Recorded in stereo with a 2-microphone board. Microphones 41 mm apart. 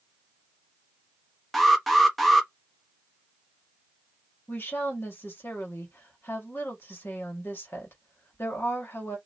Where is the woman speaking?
60° left (ahead or behind), 1.8 m.